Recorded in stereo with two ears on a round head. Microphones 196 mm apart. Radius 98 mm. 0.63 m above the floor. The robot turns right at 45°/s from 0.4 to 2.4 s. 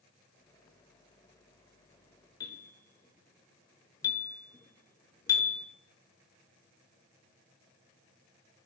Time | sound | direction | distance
2.4 | a bell | 20° left (ahead or behind) | 1.2 m